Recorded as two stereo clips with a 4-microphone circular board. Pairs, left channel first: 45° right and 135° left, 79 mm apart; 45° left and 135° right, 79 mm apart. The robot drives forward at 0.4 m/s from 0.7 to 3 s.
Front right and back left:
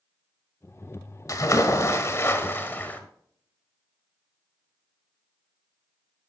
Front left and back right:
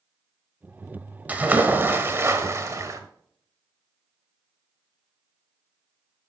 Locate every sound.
1.3 s a splash: 70° right, 1.3 m; by 3.0 s 105° right, 1.3 m